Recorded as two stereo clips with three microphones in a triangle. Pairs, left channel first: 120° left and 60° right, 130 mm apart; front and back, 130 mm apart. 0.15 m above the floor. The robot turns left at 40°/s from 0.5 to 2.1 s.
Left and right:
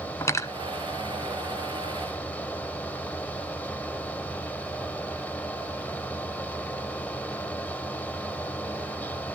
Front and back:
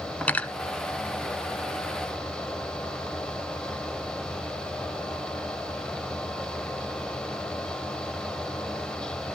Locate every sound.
0.2 s cutlery clinking: 70° left, 0.9 m